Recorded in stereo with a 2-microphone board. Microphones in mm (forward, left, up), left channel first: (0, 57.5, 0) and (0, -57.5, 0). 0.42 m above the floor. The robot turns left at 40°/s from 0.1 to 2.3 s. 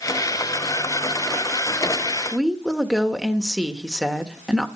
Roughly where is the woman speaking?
Centre.